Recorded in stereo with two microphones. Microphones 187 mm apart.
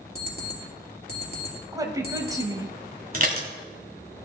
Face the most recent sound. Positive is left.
turn(degrees=-50)  # may be behind; listen again after turning